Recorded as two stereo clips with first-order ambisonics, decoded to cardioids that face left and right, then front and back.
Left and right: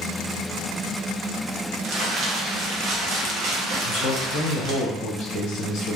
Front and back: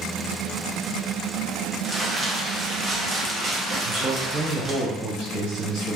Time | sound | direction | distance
1.8 | crumpling | 115° right | 0.6 m
3.8 | a man speaking | 135° left | 1.1 m